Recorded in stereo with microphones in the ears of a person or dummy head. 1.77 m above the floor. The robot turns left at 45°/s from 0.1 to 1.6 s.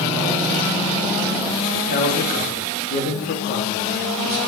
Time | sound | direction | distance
1.7 | a man speaking | 50° left (ahead or behind) | 3 m